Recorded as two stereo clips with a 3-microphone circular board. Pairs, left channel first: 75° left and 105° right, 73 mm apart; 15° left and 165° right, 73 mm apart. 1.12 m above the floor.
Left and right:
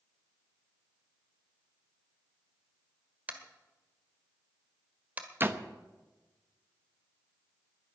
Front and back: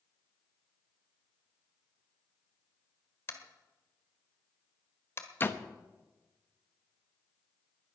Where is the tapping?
40° right, 1.6 m.